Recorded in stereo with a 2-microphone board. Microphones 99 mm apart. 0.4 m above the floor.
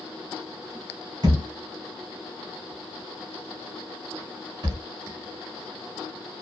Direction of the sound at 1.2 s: 50° right (ahead or behind).